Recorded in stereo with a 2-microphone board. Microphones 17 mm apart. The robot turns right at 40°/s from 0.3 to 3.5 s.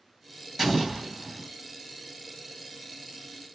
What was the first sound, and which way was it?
An explosion, 165° right.